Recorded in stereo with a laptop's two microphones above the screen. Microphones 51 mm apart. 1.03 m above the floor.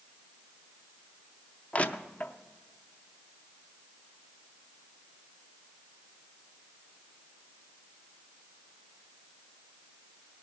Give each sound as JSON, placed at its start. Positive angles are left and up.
{"t": 1.7, "sound": "crushing", "side_deg": 30, "distance_m": 0.5}